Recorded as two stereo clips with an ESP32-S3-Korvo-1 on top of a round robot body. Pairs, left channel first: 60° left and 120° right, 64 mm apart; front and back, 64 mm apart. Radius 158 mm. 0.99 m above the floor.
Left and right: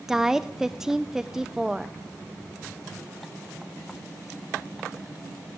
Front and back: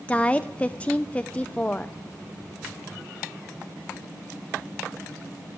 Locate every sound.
0.1 s a woman speaking: 45° right, 0.7 m